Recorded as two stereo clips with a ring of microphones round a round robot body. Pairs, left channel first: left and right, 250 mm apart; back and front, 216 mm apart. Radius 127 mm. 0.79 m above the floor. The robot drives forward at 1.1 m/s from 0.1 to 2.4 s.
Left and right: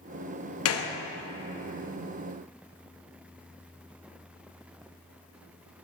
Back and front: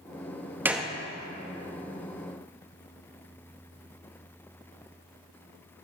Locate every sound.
0.7 s a gunshot: 80° left, 0.9 m; by 0.9 s 105° left, 0.9 m